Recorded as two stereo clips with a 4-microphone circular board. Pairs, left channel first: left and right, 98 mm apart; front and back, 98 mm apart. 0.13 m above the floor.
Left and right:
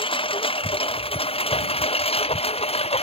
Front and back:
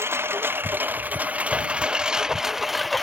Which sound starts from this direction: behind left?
A lawn mower, at 0.0 s.